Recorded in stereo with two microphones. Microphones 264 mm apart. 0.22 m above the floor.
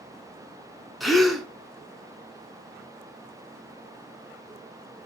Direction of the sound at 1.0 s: Centre (ahead or behind).